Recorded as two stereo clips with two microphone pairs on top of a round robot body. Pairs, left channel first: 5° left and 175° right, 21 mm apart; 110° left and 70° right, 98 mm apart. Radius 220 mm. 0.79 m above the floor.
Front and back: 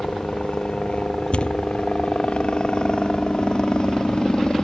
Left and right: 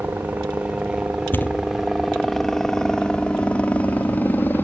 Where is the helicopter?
5° right; by 4.7 s 45° left.